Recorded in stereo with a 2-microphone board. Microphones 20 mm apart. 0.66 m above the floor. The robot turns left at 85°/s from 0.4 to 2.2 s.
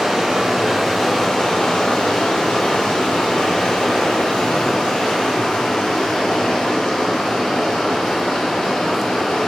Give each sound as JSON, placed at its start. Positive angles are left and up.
{"t": 0.0, "sound": "running water", "azimuth_deg": -140, "distance_m": 4.5}